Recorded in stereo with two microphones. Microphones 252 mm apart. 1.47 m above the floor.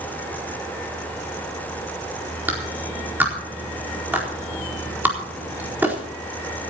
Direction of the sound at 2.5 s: 5° right (ahead or behind).